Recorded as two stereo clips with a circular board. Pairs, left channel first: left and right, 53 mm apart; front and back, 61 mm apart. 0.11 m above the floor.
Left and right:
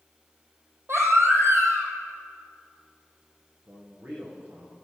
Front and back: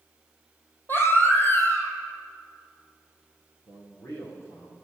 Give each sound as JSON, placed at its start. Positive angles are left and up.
{"t": 0.9, "sound": "a baby crying", "azimuth_deg": -55, "distance_m": 2.5}
{"t": 3.6, "sound": "a man speaking", "azimuth_deg": -40, "distance_m": 6.0}